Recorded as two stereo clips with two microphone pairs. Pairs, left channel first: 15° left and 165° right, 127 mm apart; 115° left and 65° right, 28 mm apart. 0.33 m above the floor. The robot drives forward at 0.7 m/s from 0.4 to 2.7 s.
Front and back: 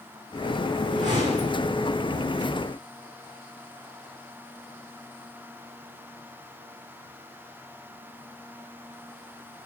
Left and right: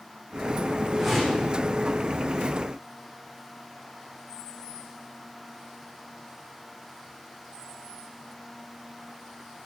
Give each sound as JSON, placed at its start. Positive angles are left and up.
{"t": 0.9, "sound": "a whoosh", "azimuth_deg": -145, "distance_m": 7.5}